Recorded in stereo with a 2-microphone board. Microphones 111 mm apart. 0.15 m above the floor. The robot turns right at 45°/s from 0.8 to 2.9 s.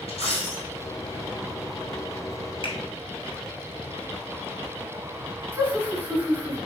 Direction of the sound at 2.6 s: 55° left (ahead or behind).